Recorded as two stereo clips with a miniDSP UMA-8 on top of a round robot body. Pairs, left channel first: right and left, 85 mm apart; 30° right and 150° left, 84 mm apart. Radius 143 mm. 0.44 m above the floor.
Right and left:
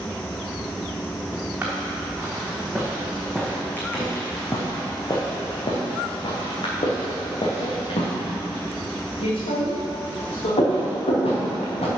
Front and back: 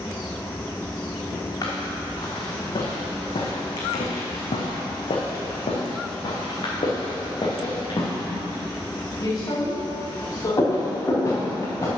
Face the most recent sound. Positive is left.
turn(degrees=-85)